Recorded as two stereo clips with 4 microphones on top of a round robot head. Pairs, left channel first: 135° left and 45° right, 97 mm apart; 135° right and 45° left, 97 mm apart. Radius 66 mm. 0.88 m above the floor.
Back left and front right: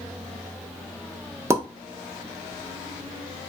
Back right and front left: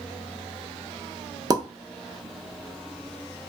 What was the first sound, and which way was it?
A pop, 10° left.